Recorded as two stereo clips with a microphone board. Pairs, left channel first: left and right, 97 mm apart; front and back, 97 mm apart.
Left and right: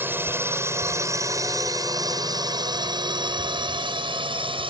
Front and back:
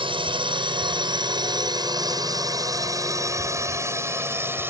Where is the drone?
155° right; by 4.7 s 115° right.